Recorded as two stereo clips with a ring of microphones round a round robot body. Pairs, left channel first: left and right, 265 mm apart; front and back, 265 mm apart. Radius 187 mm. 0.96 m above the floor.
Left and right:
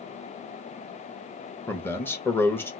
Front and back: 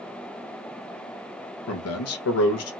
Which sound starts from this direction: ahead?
A man speaking, at 1.7 s.